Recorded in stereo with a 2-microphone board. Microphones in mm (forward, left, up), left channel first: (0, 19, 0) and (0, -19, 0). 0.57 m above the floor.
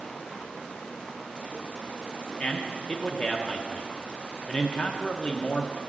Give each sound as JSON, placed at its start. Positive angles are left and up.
{"t": 2.4, "sound": "a man speaking", "side_deg": 25, "distance_m": 0.6}